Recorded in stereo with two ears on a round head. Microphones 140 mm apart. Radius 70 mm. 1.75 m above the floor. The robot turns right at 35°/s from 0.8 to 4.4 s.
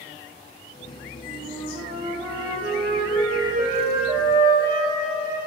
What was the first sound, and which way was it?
A flute, 160° right.